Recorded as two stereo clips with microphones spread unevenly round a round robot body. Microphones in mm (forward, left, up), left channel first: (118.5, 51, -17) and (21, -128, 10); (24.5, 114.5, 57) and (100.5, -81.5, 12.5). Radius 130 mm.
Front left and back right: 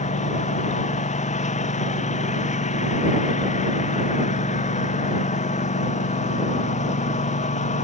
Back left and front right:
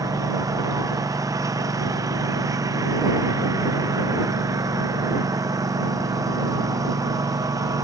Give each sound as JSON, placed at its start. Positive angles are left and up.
{"t": 0.0, "sound": "a lawn mower", "azimuth_deg": 5}